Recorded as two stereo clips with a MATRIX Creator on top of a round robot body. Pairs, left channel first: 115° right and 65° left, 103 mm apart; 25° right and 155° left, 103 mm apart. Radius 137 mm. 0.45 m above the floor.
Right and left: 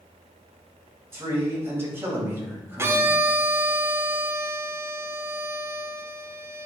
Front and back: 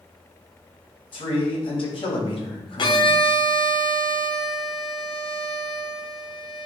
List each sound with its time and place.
1.1 s a man speaking: 5° left, 3 m
2.8 s a violin: 5° left, 1.0 m